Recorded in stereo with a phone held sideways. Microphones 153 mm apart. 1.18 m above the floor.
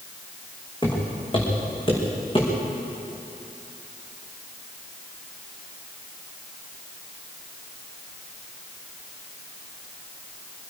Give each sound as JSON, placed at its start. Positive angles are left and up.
{"t": 0.8, "sound": "footsteps", "side_deg": 30, "distance_m": 5.0}